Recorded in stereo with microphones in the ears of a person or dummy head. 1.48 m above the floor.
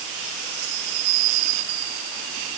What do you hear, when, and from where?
Only background noise.